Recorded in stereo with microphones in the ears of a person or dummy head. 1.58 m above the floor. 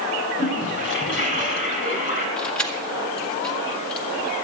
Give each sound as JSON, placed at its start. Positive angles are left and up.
{"t": 0.4, "sound": "a toilet flushing", "side_deg": 60, "distance_m": 5.5}
{"t": 2.4, "sound": "keys jangling", "side_deg": 5, "distance_m": 1.9}